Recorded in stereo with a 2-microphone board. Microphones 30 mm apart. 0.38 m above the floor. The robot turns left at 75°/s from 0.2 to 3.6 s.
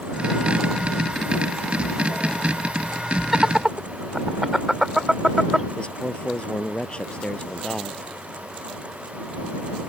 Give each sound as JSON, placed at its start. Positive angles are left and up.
{"t": 3.3, "sound": "laughter", "side_deg": -5}
{"t": 5.8, "sound": "a man speaking", "side_deg": 35}